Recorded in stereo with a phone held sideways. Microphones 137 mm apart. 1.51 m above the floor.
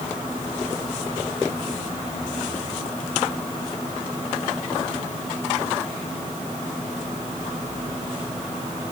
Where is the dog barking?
No dog barking in this recording.